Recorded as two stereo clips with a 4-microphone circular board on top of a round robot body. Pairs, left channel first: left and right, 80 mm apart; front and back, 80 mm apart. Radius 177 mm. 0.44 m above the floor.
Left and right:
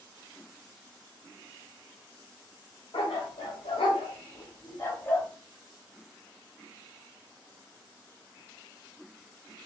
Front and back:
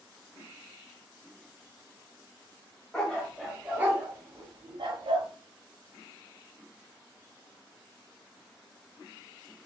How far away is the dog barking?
About 1.1 m.